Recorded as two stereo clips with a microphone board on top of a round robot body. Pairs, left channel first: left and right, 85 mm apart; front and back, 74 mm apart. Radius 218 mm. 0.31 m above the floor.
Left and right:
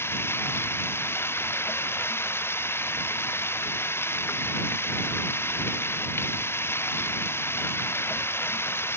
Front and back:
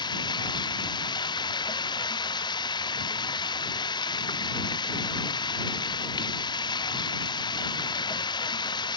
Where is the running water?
25° left.